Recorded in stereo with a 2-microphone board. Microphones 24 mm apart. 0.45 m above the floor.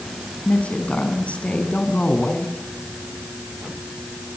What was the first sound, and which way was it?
A woman speaking, 65° left (ahead or behind).